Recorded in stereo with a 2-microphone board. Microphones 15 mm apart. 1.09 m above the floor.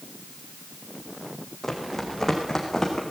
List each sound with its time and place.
1.6 s running footsteps: 20° left (ahead or behind), 4 m; by 3.0 s 35° left (ahead or behind), 4.5 m